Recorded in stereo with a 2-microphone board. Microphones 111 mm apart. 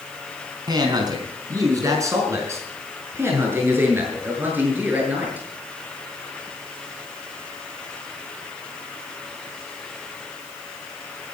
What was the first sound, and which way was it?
A man speaking, 40° right (ahead or behind).